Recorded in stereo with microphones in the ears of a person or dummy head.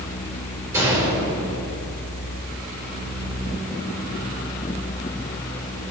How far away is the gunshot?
About 5 m.